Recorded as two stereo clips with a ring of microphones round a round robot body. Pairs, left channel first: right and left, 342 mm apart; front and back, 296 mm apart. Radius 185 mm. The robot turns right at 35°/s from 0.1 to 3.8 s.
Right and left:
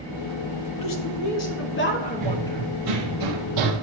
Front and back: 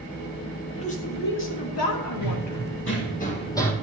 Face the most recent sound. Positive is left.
turn(degrees=85)